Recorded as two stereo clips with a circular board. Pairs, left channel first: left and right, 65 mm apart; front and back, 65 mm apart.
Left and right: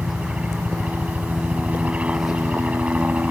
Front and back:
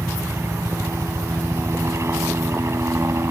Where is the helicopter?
155° right.